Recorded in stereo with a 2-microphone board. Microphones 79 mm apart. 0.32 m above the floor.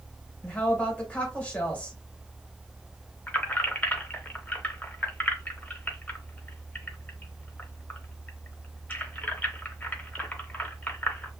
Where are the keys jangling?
20° left (ahead or behind), 0.8 m.